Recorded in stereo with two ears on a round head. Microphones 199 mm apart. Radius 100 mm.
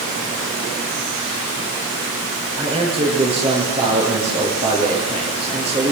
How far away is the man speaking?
About 9 m.